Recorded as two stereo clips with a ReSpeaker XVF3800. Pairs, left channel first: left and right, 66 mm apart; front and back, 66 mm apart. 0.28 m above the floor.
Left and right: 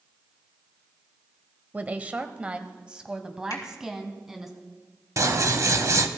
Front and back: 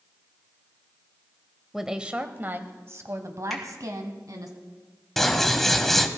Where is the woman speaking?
100° right, 0.9 m; by 4.5 s 170° right, 2.0 m.